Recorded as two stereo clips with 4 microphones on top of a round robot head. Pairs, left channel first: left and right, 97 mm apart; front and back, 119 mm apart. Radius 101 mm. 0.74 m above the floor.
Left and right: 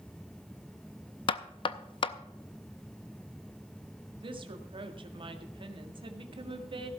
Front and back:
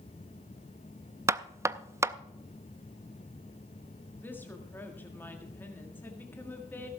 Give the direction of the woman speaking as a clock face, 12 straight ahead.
2 o'clock.